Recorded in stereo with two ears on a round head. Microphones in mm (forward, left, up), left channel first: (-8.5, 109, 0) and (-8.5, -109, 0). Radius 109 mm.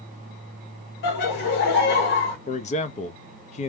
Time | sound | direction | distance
1.0 | laughter | 50° left (ahead or behind) | 1.9 m
2.5 | a man speaking | 30° left (ahead or behind) | 0.6 m